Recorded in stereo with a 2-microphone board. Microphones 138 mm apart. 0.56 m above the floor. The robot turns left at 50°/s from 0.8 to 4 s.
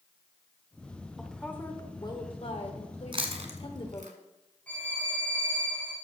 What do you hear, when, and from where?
1.2 s a woman speaking: straight behind, 2.0 m; by 4.1 s 40° left, 2.0 m
3.1 s chewing: 40° right (ahead or behind), 1.6 m; by 4.1 s 85° right, 1.6 m
4.7 s a violin: 10° left (ahead or behind), 5.5 m